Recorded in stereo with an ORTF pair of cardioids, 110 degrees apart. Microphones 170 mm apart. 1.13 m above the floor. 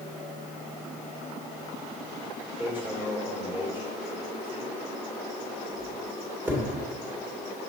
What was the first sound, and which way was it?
Hammering, 10° right.